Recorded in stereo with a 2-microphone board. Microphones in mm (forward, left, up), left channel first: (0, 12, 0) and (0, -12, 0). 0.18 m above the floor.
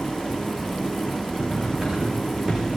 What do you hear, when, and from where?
0.0 s an engine running: 30° left (ahead or behind), 6.5 m
1.4 s cutlery clinking: 25° right (ahead or behind), 8.5 m